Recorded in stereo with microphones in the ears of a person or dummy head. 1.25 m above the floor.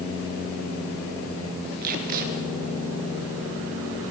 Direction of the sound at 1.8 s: 50° right (ahead or behind).